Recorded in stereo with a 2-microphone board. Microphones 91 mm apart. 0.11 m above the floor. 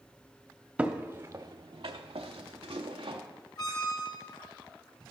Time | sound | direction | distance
0.8 | footsteps | 15° right (ahead or behind) | 0.8 m
3.6 | a squeak | 45° left (ahead or behind) | 0.8 m